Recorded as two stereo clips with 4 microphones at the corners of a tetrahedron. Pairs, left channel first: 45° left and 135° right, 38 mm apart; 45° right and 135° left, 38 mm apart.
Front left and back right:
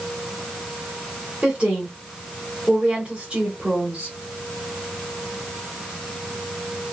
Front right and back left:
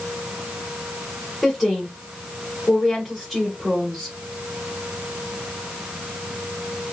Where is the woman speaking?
135° right, 1.3 m.